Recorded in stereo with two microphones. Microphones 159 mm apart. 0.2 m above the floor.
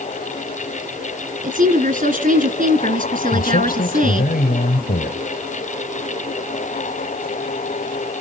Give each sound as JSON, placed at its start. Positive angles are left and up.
{"t": 1.4, "sound": "a woman speaking", "side_deg": -60, "distance_m": 2.0}
{"t": 3.3, "sound": "a man speaking", "side_deg": 65, "distance_m": 3.5}